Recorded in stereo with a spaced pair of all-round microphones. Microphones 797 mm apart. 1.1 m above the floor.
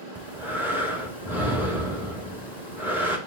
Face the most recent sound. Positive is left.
turn(degrees=-5)  # may be behind; listen again after turning